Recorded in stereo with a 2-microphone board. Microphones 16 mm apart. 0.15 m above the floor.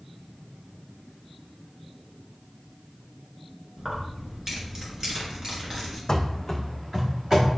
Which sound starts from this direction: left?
Running footsteps, at 6.1 s.